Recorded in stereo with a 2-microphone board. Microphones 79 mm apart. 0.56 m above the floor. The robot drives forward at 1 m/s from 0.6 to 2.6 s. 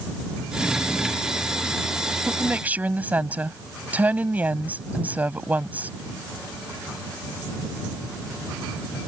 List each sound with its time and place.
2.3 s a woman speaking: 15° right (ahead or behind); by 5.9 s 20° right (ahead or behind)